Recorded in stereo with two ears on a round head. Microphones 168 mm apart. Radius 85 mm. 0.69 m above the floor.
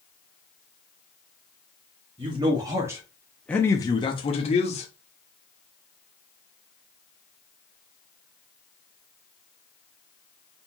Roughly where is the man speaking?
Right.